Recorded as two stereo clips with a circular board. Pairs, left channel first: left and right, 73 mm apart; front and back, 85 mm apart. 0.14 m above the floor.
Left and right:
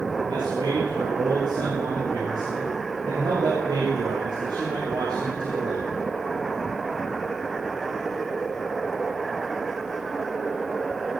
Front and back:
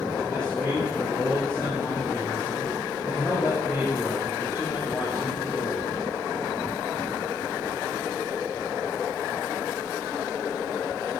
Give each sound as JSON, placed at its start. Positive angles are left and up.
{"t": 0.3, "sound": "a man speaking", "azimuth_deg": -80, "distance_m": 7.0}